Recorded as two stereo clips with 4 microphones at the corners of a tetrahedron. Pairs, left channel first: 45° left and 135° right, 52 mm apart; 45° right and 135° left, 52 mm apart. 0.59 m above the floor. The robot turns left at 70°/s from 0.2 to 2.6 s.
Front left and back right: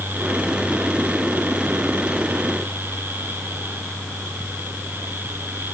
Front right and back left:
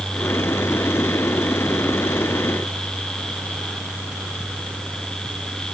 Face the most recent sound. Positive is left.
No sound to turn to.